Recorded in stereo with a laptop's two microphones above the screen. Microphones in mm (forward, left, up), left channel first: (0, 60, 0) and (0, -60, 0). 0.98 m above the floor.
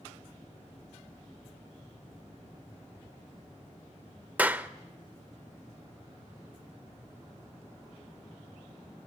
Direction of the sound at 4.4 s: 10° right (ahead or behind).